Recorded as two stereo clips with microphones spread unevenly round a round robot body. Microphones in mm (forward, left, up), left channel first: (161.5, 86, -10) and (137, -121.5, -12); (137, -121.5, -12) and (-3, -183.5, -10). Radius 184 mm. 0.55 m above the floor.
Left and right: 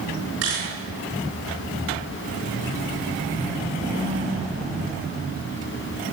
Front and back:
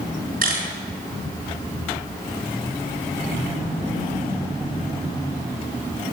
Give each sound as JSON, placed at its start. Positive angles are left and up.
{"t": 0.4, "sound": "a camera shutter", "azimuth_deg": -140, "distance_m": 7.5}